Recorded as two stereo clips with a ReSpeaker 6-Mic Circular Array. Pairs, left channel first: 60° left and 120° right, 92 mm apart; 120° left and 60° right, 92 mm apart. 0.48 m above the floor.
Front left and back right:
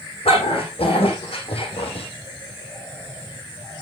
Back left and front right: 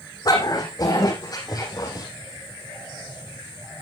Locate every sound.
0.2 s a dog barking: 75° left, 9 m; by 2.1 s 70° left, 6 m